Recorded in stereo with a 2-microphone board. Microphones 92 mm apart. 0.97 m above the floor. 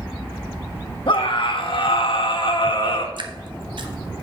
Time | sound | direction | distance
1.1 | a scream | 65° left (ahead or behind) | 1.5 m
3.2 | dripping | 60° right (ahead or behind) | 0.9 m